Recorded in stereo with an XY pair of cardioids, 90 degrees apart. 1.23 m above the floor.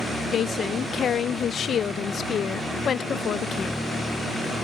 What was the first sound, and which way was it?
A woman speaking, 60° left.